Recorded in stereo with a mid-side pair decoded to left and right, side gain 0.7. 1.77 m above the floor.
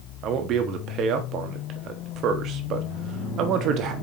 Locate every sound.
0.2 s a man speaking: 50° right, 1.0 m